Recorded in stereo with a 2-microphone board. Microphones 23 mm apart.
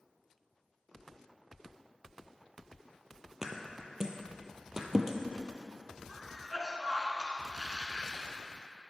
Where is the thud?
25° right (ahead or behind), 0.8 m.